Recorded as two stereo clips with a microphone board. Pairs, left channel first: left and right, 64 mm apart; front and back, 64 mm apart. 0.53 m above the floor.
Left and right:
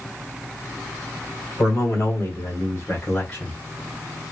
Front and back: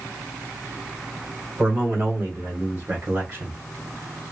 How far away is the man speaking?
About 2 m.